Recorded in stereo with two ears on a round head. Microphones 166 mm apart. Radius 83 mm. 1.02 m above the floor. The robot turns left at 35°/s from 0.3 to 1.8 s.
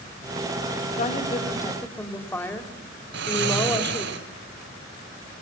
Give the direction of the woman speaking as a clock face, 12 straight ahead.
11 o'clock.